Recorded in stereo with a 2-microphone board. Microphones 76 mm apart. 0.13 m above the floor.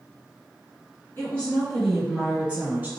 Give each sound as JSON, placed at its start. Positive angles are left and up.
{"t": 1.2, "sound": "a woman speaking", "side_deg": 25, "distance_m": 1.3}